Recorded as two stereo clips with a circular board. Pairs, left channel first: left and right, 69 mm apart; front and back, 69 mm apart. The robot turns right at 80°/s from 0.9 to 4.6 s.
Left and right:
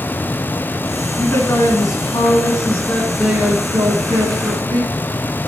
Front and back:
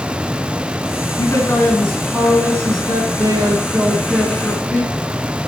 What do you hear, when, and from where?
1.2 s a man speaking: 25° left, 4.5 m; by 4.9 s 65° right, 4.5 m